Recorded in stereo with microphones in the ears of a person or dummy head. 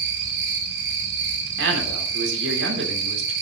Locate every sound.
0.0 s an insect: 60° right (ahead or behind), 2 m
1.6 s a man speaking: 75° right (ahead or behind), 4 m